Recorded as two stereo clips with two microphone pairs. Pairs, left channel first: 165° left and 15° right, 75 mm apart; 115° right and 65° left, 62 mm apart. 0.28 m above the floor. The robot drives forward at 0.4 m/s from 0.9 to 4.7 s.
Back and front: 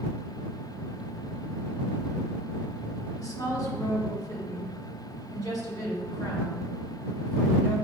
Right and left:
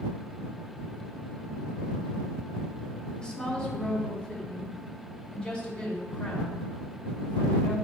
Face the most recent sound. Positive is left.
turn(degrees=175)